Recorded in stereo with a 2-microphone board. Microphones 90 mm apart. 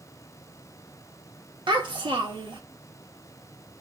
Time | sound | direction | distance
1.7 | a child speaking | 60° right (ahead or behind) | 1.0 m